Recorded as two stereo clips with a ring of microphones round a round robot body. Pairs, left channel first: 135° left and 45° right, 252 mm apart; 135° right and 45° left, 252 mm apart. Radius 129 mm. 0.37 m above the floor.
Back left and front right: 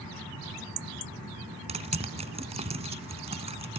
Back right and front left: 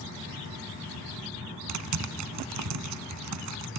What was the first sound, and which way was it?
Typing on a keyboard, 20° left.